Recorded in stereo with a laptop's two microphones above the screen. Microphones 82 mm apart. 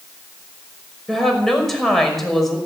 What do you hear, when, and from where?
1.1 s a woman speaking: centre (ahead or behind), 5.5 m